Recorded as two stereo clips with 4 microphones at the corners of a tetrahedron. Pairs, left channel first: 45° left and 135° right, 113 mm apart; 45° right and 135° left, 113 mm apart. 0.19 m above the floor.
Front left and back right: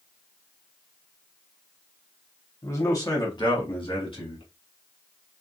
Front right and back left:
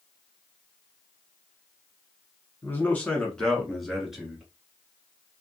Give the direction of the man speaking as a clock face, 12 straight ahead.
12 o'clock.